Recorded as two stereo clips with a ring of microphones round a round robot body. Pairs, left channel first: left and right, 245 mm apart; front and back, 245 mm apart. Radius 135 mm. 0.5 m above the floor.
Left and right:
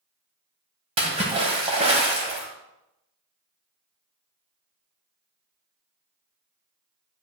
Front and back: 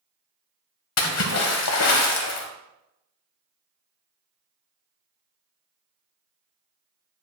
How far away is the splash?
About 1.3 m.